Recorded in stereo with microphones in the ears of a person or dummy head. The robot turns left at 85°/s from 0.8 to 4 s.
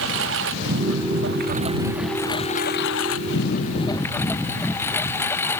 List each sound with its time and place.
0.0 s a lawn mower: 75° right; by 5.6 s 15° left